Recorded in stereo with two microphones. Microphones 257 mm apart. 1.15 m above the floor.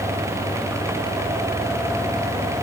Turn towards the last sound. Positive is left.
No sound to turn to.